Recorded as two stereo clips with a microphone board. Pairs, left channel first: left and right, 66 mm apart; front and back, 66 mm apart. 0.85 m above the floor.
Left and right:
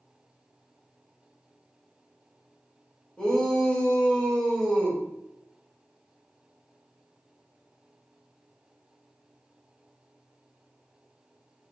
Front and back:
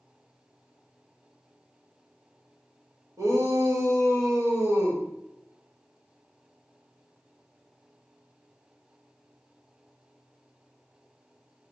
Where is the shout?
165° left, 1.5 m.